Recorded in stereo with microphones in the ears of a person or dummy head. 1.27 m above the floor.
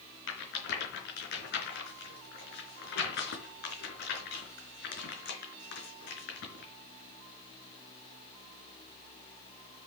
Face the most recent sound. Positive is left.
turn(degrees=55)  # may be behind; listen again after turning